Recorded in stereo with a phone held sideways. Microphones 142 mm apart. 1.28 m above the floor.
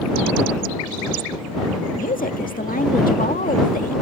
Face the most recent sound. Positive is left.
turn(degrees=80)